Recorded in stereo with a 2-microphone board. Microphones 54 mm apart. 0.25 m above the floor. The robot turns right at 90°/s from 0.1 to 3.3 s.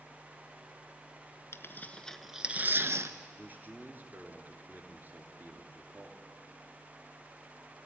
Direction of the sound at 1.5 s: 60° left (ahead or behind).